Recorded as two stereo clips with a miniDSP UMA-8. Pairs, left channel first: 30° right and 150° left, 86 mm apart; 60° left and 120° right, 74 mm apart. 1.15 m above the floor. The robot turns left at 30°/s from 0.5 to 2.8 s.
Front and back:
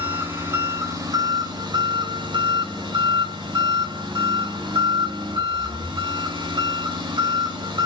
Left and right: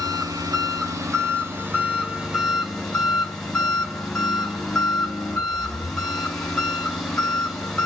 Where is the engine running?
145° right, 5.5 m; by 7.9 s 145° left, 5.5 m.